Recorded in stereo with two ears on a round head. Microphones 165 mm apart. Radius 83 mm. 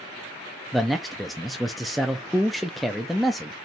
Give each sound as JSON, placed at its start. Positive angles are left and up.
{"t": 0.7, "sound": "a man speaking", "side_deg": 0, "distance_m": 0.6}